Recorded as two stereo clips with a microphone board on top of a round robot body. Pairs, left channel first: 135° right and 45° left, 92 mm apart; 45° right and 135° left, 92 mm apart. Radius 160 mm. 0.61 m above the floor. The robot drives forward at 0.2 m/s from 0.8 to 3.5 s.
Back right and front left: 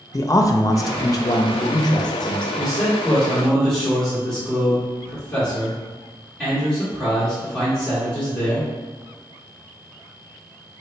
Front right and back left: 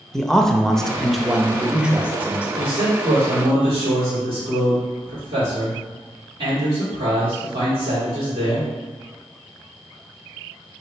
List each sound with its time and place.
0.1 s a man speaking: 125° right, 0.6 m; by 2.5 s 155° right, 0.8 m
2.6 s a man speaking: 135° left, 1.8 m; by 8.7 s 140° left, 1.9 m